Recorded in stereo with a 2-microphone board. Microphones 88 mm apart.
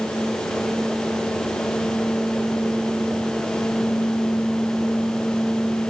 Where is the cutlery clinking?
No cutlery clinking in this recording.